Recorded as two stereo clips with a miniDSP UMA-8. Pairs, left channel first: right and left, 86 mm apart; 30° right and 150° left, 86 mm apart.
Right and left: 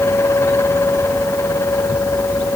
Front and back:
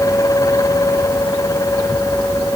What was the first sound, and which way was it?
Only background noise.